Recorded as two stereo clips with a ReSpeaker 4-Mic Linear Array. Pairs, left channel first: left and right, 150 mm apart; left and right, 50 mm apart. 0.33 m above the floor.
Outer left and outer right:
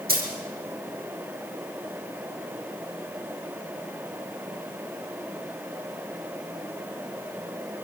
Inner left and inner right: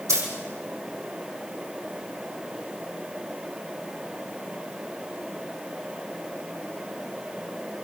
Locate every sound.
0.1 s a dropped coin: 85° right, 6 m